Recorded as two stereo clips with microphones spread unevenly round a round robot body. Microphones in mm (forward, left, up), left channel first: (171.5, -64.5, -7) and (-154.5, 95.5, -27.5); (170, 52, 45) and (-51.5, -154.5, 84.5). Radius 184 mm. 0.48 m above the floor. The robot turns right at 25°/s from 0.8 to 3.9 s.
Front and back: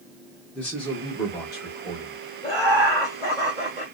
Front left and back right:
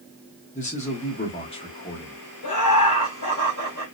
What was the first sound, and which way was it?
A man speaking, 60° left.